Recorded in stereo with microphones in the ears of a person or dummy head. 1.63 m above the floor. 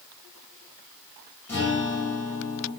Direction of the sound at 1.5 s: 15° left (ahead or behind).